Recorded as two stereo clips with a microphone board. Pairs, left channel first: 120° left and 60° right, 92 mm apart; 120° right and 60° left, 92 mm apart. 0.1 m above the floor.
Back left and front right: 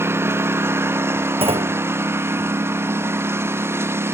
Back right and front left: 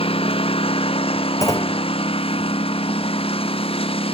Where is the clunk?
65° right.